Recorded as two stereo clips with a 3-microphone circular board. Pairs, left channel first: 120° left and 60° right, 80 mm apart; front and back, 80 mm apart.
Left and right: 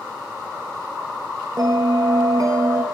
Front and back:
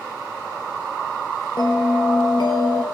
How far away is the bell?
About 1.2 m.